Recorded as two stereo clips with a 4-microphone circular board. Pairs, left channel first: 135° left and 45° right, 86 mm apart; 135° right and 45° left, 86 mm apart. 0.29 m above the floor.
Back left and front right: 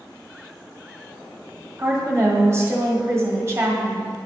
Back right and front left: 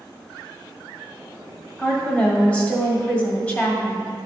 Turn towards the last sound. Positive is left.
turn(degrees=-75)